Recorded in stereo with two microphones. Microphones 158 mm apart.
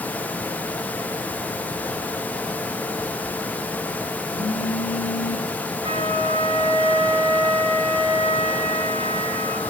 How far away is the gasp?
No gasp in this recording.